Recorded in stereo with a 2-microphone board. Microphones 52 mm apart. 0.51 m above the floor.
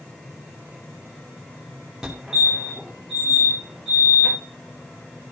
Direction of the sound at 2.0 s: 5° right (ahead or behind).